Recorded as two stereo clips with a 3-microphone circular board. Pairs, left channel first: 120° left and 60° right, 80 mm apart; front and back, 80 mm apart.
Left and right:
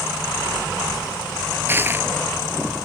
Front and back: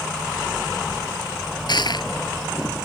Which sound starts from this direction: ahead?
Crushing, at 1.7 s.